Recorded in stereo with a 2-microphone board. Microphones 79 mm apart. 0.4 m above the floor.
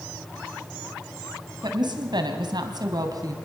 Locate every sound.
1.6 s a woman speaking: 65° right (ahead or behind), 3 m; by 3.3 s 50° right (ahead or behind), 3 m